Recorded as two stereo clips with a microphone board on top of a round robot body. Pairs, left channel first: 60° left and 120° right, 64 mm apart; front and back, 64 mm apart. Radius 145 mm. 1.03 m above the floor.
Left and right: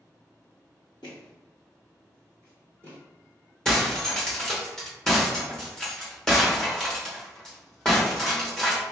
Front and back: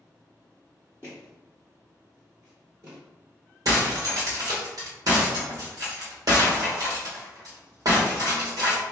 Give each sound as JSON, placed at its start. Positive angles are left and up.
{"t": 1.0, "sound": "footsteps", "azimuth_deg": 55, "distance_m": 1.1}
{"t": 3.6, "sound": "breaking glass", "azimuth_deg": 140, "distance_m": 1.0}